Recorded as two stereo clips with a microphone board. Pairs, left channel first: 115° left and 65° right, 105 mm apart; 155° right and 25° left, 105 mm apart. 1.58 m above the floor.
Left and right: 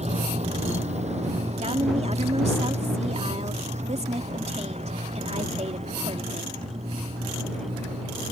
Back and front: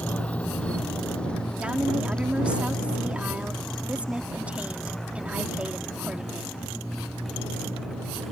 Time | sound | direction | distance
0.0 | a motorcycle | 80° right | ?
1.6 | a woman speaking | 55° right | ?